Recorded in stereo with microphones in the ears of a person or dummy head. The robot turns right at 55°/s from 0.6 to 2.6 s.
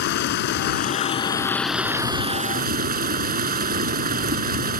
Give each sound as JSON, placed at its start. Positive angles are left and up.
{"t": 0.0, "sound": "running water", "azimuth_deg": 125}